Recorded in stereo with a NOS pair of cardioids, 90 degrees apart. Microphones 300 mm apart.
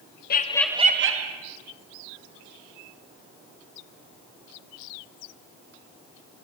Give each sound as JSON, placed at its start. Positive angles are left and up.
{"t": 0.3, "sound": "laughter", "azimuth_deg": 35, "distance_m": 0.7}